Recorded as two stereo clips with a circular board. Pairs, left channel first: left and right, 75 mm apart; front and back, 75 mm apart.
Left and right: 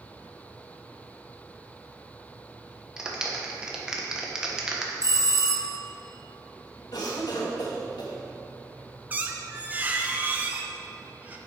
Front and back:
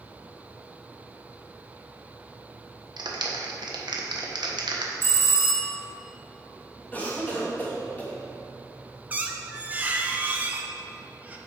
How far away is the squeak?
About 0.8 m.